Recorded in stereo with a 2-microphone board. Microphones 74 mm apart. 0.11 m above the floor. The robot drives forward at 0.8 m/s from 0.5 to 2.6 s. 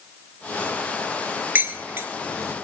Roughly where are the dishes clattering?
Right.